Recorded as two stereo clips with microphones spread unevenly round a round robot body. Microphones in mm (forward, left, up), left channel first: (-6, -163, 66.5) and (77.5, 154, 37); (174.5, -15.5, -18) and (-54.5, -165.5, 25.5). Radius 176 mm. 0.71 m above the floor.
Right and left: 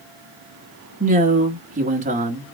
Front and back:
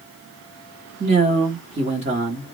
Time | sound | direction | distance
1.0 | a man speaking | 140° left | 1.3 m